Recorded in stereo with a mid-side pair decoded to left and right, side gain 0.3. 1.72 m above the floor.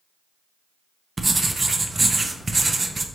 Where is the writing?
35° right, 0.5 m.